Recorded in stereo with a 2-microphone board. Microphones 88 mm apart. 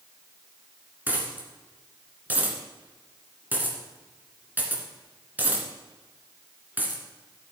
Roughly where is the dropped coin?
Right.